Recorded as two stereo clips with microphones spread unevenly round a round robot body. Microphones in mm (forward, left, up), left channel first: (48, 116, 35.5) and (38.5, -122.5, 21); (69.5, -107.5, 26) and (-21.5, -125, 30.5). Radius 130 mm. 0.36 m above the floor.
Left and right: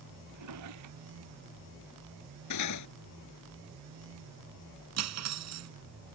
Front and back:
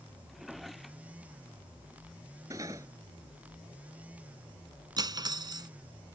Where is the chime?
No chime in this recording.